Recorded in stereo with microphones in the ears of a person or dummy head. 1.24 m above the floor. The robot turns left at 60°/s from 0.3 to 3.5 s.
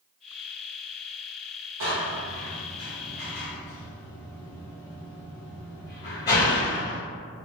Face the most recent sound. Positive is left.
turn(degrees=15)  # may be behind; listen again after turning